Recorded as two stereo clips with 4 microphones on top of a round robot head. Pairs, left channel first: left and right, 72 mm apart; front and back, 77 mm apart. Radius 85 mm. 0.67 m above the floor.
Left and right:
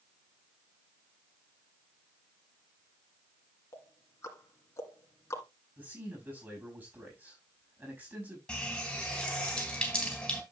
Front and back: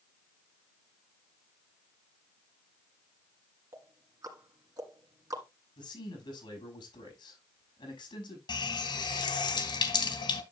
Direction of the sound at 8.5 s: 10° left.